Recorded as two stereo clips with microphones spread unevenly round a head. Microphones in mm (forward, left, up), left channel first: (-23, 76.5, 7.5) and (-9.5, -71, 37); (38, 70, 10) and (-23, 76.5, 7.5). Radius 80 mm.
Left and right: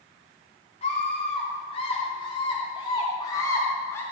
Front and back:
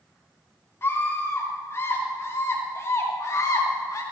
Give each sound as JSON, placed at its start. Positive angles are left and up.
{"t": 0.8, "sound": "a scream", "azimuth_deg": 40, "distance_m": 4.0}